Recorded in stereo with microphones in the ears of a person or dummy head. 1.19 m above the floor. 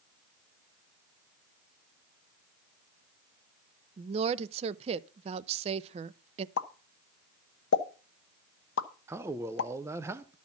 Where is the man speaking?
15° right (ahead or behind), 0.6 m.